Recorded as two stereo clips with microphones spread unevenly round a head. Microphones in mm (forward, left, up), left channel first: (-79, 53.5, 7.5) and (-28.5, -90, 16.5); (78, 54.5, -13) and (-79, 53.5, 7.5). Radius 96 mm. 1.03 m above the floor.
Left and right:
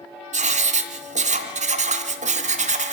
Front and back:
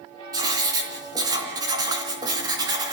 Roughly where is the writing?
Right.